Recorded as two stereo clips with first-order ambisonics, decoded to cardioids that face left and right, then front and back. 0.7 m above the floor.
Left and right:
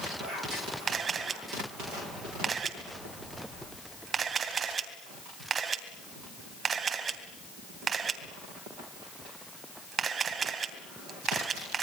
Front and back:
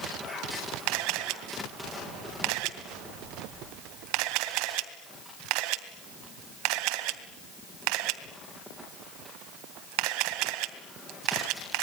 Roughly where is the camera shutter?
Behind.